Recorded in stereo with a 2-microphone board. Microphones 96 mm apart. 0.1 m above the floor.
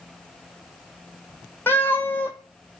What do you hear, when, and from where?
1.7 s a cat meowing: 20° left (ahead or behind), 0.7 m